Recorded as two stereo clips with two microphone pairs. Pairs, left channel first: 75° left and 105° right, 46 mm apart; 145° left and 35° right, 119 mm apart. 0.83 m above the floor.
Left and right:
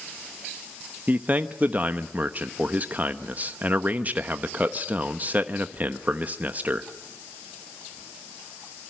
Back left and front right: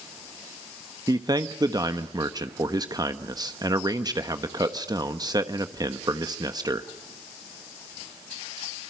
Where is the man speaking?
80° right, 1.1 m.